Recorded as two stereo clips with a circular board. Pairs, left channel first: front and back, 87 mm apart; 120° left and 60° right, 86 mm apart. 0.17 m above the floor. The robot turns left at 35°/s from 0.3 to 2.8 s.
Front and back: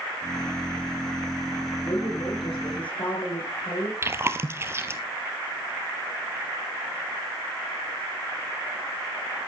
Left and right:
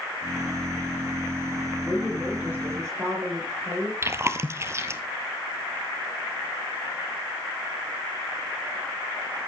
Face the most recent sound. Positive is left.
turn(degrees=-120)